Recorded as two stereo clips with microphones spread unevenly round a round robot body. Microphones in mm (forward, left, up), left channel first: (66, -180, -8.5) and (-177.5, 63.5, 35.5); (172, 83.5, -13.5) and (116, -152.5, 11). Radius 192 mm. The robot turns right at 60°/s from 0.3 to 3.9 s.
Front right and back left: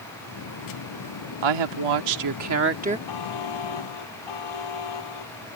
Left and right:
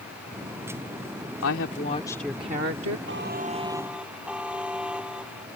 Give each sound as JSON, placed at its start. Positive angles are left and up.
{"t": 1.4, "sound": "a woman speaking", "azimuth_deg": 115}
{"t": 3.1, "sound": "a buzzer", "azimuth_deg": -70}